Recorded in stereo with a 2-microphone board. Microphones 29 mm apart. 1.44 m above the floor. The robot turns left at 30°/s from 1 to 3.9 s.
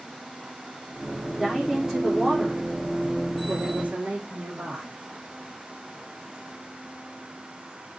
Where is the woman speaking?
Straight ahead, 4 m; by 5.0 s 75° right, 4 m.